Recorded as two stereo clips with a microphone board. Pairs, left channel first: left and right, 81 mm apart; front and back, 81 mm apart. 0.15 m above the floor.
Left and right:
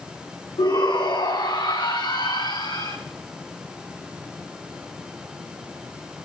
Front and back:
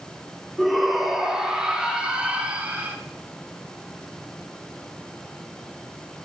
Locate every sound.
0.6 s a shout: 90° left, 5.5 m; by 3.0 s 110° left, 6 m